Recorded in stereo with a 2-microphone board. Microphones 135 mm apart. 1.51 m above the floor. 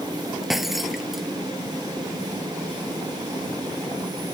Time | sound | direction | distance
0.4 | breaking glass | centre (ahead or behind) | ?